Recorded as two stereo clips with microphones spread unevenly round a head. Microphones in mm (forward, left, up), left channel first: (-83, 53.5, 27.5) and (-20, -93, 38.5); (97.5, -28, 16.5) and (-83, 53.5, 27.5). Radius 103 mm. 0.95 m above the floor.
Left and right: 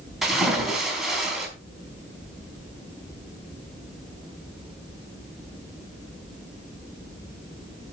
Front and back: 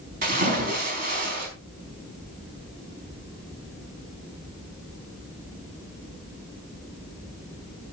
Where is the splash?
155° right, 4.5 m.